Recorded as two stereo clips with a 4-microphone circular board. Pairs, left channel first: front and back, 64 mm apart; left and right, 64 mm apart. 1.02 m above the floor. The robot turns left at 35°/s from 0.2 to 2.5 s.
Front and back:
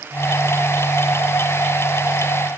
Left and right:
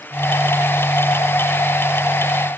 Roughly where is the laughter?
No laughter in this recording.